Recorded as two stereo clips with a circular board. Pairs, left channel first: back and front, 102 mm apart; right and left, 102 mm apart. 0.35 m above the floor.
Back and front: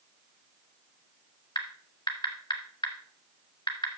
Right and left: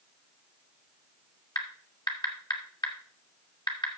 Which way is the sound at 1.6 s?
135° right.